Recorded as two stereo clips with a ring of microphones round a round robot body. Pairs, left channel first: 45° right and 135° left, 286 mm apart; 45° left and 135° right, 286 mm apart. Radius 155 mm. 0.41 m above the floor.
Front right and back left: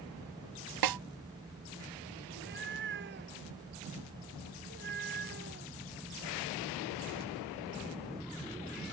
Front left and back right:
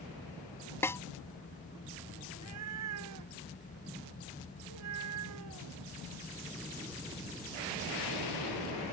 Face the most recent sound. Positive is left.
turn(degrees=-170)